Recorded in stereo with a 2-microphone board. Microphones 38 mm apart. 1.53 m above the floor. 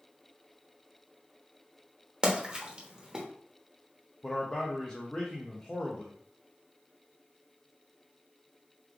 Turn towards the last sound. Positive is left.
turn(degrees=25)  # may be behind; listen again after turning